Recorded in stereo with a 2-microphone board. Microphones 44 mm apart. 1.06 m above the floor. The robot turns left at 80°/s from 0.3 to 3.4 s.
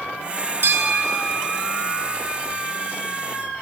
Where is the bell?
95° right, 1.2 m; by 2.1 s 150° left, 1.2 m.